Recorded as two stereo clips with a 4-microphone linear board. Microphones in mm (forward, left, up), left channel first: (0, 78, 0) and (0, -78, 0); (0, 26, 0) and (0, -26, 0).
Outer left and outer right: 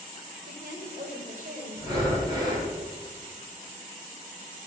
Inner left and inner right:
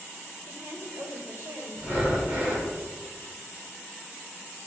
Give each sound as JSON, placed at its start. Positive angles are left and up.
{"t": 0.5, "sound": "a woman speaking", "side_deg": -65, "distance_m": 2.5}
{"t": 1.8, "sound": "breathing", "side_deg": -25, "distance_m": 3.0}